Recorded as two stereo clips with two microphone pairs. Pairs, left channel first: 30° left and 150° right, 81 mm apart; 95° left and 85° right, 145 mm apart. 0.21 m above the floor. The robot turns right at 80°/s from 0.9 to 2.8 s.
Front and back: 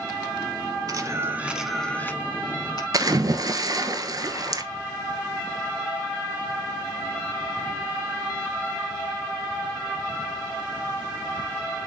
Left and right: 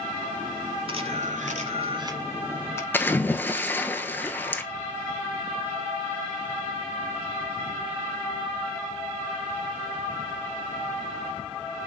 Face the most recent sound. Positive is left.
turn(degrees=170)